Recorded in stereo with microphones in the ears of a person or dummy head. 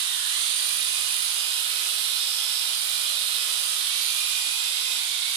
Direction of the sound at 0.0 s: 70° right (ahead or behind).